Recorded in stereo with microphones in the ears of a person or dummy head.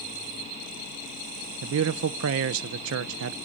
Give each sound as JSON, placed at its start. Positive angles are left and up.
{"t": 1.6, "sound": "a man speaking", "side_deg": -70, "distance_m": 0.6}